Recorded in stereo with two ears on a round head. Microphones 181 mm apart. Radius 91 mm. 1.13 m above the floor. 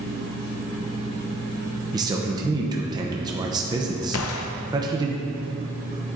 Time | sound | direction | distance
1.9 | a man speaking | 20° right (ahead or behind) | 0.7 m
4.1 | a gunshot | 75° left (ahead or behind) | 0.5 m